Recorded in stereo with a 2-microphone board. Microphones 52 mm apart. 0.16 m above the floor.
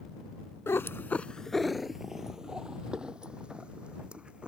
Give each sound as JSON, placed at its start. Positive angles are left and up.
{"t": 0.7, "sound": "a cat meowing", "side_deg": 55}